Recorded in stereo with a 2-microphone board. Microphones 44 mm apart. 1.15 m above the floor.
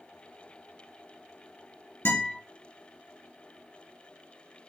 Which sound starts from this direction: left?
A guitar, at 2.0 s.